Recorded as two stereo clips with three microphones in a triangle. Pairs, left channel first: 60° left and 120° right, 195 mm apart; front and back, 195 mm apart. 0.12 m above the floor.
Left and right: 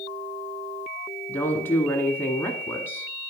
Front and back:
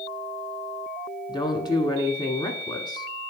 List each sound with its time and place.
1.3 s a woman speaking: straight ahead, 1.1 m